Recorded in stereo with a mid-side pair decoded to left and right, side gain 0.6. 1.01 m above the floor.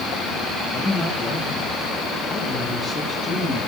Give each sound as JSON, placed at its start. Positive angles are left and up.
{"t": 0.7, "sound": "a man speaking", "azimuth_deg": 30, "distance_m": 9.0}